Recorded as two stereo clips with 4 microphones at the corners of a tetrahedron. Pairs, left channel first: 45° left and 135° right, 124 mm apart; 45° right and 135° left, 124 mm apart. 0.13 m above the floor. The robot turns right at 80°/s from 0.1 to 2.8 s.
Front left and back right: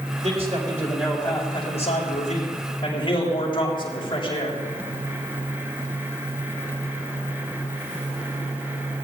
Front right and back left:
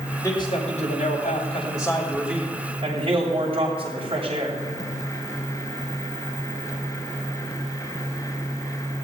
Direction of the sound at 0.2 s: 110° right.